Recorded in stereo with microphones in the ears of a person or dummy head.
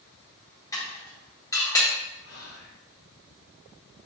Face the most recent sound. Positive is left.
turn(degrees=60)  # may be behind; listen again after turning